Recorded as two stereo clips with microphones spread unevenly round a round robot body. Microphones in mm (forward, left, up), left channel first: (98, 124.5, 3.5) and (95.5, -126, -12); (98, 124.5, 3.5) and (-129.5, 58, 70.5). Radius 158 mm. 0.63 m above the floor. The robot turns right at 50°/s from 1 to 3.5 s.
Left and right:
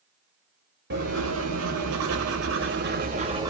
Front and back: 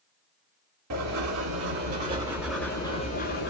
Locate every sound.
0.9 s writing: 140° right, 1.5 m; by 3.5 s 15° right, 1.5 m